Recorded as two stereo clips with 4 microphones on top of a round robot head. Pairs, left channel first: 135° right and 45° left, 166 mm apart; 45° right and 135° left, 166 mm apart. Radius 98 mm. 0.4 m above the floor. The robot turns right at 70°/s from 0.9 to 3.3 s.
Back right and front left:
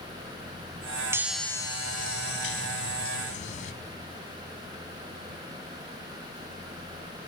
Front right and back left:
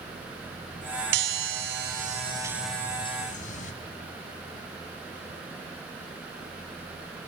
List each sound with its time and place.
1.1 s a chime: 120° left, 1.0 m; by 3.7 s 90° right, 1.0 m